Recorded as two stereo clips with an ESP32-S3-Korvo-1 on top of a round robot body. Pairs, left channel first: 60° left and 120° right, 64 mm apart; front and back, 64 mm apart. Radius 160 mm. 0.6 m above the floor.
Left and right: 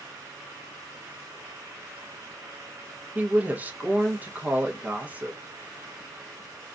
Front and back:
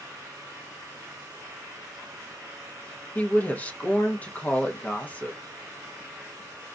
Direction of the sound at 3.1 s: 60° right.